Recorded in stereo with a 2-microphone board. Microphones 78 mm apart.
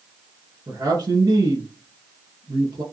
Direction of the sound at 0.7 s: 55° right (ahead or behind).